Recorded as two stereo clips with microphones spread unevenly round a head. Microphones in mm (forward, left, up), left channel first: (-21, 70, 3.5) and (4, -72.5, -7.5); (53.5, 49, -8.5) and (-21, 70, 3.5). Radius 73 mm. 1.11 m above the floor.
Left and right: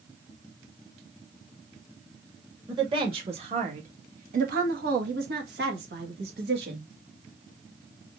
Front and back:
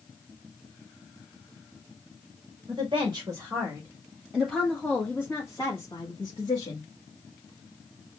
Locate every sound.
2.7 s a woman speaking: 135° right, 2.0 m; by 6.9 s 60° right, 2.0 m